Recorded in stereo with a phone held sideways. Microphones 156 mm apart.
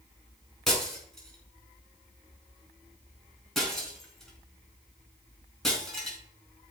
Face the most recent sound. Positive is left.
turn(degrees=0)  # may be behind; listen again after turning